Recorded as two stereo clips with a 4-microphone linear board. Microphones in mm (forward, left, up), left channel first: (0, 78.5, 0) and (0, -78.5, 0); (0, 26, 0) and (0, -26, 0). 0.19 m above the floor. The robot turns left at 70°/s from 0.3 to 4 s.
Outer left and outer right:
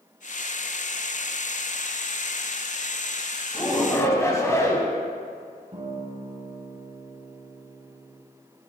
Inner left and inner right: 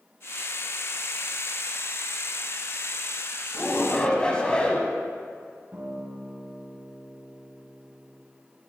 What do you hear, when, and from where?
3.5 s a shout: 20° left (ahead or behind), 1.0 m
5.7 s a guitar: 50° right (ahead or behind), 1.9 m